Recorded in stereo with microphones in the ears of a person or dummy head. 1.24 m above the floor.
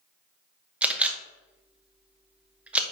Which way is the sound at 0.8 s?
5° right (ahead or behind).